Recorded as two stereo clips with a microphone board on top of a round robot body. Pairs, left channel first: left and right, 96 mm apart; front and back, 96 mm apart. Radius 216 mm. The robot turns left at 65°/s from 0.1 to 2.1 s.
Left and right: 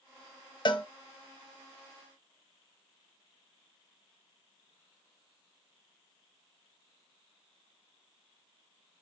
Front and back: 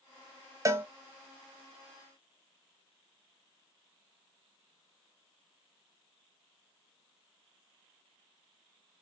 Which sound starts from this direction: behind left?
A cowbell, at 0.7 s.